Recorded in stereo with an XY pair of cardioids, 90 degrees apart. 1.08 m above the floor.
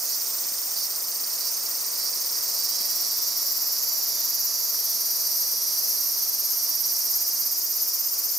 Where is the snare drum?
No snare drum in this recording.